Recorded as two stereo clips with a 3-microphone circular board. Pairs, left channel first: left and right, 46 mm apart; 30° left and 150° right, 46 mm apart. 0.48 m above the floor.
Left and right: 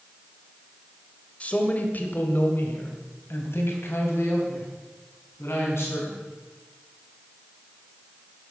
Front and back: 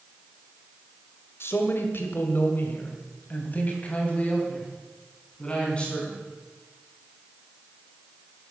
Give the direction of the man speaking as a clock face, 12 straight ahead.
11 o'clock.